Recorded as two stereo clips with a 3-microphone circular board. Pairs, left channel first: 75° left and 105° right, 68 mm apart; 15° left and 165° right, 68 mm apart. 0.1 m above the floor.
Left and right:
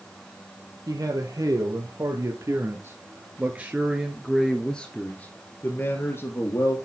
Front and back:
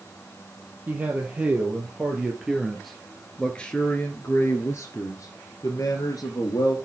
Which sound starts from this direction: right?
A man speaking, at 0.9 s.